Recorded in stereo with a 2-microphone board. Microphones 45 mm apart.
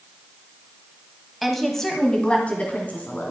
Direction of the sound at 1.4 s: Centre (ahead or behind).